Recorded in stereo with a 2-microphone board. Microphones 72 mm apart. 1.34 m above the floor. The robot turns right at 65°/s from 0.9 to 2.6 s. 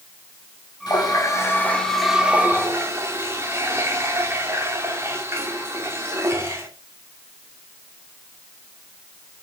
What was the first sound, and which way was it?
A running tap, 105° left.